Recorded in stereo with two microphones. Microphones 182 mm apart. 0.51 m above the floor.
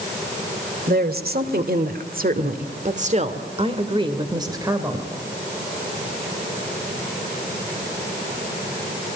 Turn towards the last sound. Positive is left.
turn(degrees=-15)  # may be behind; listen again after turning